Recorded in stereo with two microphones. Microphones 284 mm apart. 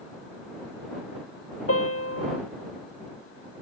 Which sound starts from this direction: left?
A piano, at 1.7 s.